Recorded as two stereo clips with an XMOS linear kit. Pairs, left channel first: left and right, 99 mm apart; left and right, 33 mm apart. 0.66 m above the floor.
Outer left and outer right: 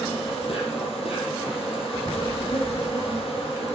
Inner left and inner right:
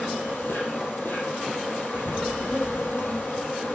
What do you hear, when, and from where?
0.0 s an insect: 80° left, 5 m